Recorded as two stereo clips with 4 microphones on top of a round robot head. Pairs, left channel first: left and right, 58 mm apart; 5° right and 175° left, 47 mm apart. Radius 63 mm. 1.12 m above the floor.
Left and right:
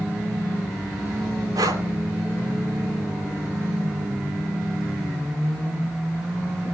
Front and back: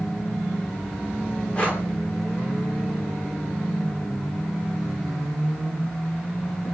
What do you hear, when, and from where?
1.6 s breathing: 70° right, 3 m